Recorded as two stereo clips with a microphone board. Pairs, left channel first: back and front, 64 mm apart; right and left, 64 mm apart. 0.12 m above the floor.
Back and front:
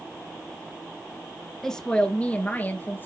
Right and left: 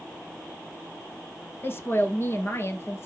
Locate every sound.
1.6 s a woman speaking: 100° right, 1.4 m; by 3.1 s 130° right, 2 m